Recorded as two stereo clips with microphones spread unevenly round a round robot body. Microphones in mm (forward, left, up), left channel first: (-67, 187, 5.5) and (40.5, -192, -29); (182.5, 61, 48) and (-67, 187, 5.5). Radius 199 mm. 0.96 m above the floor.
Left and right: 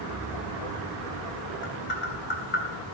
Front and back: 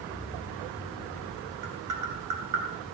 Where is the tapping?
170° left, 4 m.